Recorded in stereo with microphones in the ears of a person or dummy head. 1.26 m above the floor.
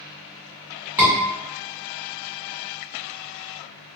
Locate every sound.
1.0 s a scream: centre (ahead or behind), 1.8 m